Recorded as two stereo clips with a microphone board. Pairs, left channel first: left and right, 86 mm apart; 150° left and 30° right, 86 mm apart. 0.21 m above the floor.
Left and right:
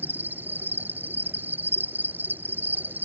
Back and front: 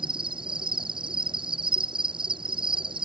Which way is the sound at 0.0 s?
20° right.